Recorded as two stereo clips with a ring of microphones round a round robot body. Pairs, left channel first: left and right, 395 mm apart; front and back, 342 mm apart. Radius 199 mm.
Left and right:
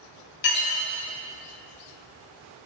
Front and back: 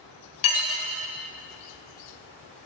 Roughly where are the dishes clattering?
Ahead left.